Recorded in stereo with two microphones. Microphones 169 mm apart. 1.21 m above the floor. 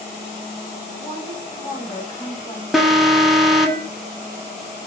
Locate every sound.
1.0 s a woman speaking: 20° left (ahead or behind), 3.5 m
2.7 s an alarm: centre (ahead or behind), 1.1 m